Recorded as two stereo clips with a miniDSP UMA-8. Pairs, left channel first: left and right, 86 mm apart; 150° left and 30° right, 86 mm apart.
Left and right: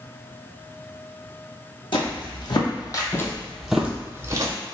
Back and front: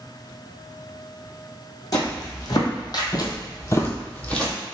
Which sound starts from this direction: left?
Footsteps, at 1.9 s.